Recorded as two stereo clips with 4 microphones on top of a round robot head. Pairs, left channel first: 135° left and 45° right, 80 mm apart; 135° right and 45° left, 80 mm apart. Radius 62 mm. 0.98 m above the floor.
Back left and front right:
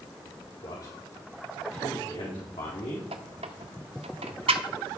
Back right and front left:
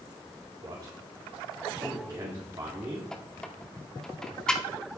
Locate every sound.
0.6 s a man speaking: 95° left, 3.5 m; by 3.1 s 110° left, 1.7 m
3.1 s a squeak: 55° right, 0.7 m